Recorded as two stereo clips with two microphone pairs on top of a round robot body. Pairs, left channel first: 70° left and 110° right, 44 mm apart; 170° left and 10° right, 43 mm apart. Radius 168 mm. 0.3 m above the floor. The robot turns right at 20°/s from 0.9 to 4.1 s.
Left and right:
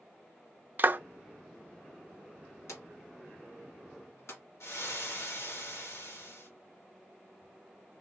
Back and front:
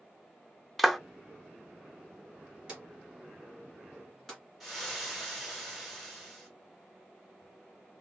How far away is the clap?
About 0.8 m.